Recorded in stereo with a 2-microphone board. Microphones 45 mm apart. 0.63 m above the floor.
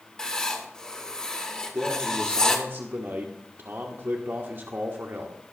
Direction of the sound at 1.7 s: 50° right (ahead or behind).